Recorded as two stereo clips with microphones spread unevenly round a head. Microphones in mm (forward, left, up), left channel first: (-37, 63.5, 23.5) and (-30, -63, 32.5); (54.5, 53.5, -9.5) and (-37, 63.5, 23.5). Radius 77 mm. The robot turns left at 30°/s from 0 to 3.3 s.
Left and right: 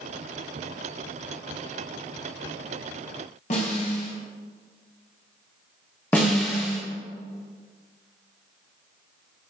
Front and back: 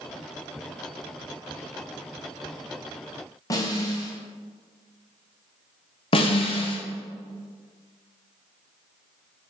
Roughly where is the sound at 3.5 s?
Ahead left.